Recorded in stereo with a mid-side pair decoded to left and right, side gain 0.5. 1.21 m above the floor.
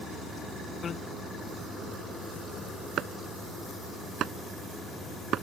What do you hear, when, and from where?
0.8 s a bicycle bell: 45° left
3.0 s chopping: 60° right